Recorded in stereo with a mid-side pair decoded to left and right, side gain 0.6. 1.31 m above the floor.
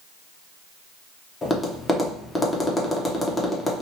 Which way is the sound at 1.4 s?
20° left.